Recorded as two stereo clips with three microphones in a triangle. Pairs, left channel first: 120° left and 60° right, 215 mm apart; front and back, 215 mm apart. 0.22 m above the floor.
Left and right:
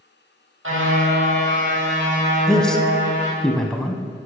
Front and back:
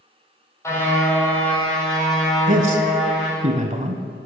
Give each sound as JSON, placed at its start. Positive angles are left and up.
{"t": 0.6, "sound": "a car horn", "azimuth_deg": -75, "distance_m": 4.0}
{"t": 2.5, "sound": "a man speaking", "azimuth_deg": -155, "distance_m": 1.2}